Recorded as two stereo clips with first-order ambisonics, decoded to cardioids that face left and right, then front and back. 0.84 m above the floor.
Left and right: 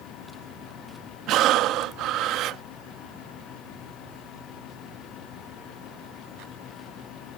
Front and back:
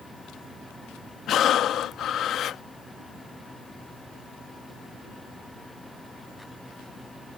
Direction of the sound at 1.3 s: 50° right.